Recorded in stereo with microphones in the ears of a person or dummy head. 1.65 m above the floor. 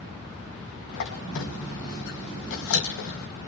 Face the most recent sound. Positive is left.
turn(degrees=65)  # may be behind; listen again after turning